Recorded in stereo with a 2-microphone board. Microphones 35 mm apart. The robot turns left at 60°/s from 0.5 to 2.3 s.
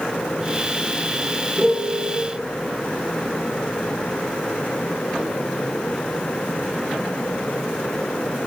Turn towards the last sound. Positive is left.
turn(degrees=-25)